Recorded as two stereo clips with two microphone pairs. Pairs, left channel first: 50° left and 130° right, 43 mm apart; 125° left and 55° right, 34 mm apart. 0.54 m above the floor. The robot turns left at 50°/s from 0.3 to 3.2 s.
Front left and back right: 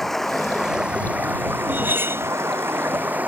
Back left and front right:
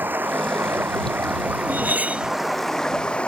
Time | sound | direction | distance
0.0 | running water | 30° right | ?
1.7 | cutlery clinking | 80° right | ?